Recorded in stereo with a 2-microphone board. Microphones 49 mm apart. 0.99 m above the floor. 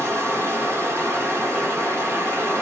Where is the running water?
55° right (ahead or behind), 1.3 m.